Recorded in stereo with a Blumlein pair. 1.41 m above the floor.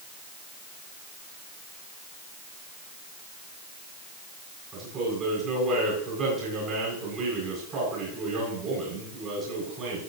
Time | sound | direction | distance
4.7 | a man speaking | 25° right | 8.5 m